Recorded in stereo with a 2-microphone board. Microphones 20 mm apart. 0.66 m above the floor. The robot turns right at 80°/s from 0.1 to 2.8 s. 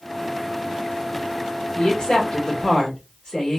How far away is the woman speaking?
About 1.4 m.